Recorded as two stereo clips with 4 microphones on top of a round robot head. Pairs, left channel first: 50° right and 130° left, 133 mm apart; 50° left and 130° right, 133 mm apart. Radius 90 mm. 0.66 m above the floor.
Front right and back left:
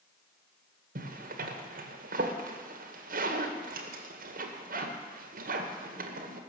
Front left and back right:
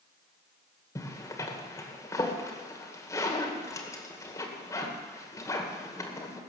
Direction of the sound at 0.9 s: 120° left.